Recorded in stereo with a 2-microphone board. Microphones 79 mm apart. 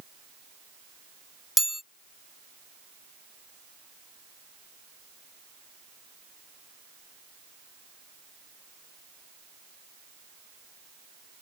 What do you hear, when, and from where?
1.6 s a chime: 5° right (ahead or behind)